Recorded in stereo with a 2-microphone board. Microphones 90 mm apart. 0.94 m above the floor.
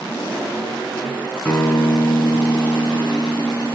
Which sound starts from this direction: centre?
A guitar, at 1.4 s.